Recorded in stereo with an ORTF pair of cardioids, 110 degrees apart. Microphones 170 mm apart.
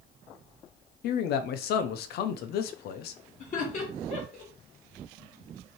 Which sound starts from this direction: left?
A man speaking, at 1.0 s.